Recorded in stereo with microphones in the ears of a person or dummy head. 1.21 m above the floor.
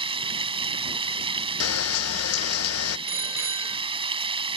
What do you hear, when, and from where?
0.0 s running water: 25° right (ahead or behind)
1.6 s a camera shutter: 75° left (ahead or behind)
3.1 s a bicycle bell: 15° right (ahead or behind)